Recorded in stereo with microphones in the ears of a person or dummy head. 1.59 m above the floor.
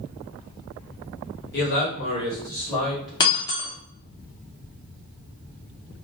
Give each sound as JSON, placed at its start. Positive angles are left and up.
{"t": 1.5, "sound": "a man speaking", "side_deg": 55, "distance_m": 0.9}
{"t": 3.2, "sound": "breaking glass", "side_deg": 25, "distance_m": 0.8}